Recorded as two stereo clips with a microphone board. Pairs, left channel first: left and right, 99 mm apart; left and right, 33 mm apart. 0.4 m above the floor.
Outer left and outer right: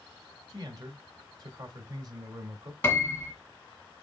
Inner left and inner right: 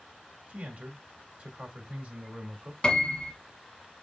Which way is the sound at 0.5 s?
40° right (ahead or behind).